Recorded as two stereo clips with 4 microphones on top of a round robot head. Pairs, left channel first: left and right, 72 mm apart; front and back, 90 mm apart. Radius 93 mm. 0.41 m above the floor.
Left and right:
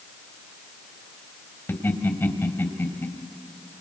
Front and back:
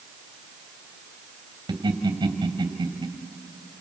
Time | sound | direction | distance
1.7 | laughter | 145° left | 3 m